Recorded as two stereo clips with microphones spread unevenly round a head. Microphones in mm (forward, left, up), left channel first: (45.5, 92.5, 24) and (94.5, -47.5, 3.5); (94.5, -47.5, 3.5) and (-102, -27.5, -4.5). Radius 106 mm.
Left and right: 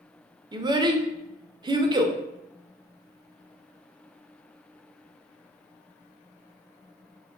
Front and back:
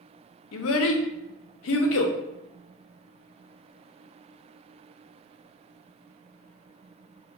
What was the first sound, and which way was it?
A child speaking, 10° right.